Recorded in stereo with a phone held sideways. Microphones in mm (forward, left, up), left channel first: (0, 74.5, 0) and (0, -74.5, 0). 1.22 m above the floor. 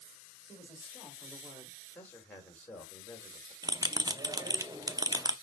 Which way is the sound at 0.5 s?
10° left (ahead or behind).